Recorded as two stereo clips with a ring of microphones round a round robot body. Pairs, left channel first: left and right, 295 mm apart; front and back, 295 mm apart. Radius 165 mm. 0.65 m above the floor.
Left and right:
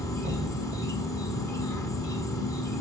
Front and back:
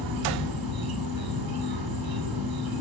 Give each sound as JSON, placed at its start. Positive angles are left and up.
{"t": 0.0, "sound": "an insect", "azimuth_deg": 170, "distance_m": 5.0}